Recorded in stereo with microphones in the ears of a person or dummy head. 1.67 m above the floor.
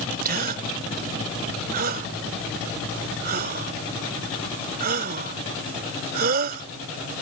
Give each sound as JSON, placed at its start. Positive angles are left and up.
{"t": 0.2, "sound": "a gasp", "side_deg": -45}